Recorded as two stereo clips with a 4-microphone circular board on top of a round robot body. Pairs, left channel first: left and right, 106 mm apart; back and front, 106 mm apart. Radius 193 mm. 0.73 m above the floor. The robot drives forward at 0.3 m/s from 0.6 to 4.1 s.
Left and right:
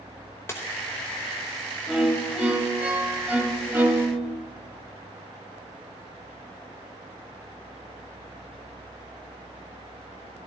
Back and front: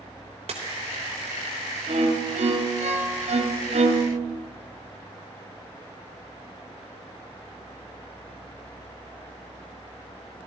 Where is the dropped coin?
25° left, 0.9 m.